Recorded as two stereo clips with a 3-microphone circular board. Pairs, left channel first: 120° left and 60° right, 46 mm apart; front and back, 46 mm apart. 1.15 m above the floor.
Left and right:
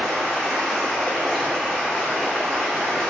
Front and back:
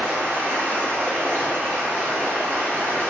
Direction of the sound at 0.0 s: 155° right.